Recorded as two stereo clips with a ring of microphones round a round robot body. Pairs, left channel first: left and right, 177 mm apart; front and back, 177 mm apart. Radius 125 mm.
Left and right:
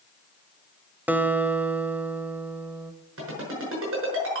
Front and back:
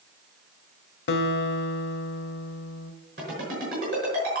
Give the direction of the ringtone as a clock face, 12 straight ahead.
4 o'clock.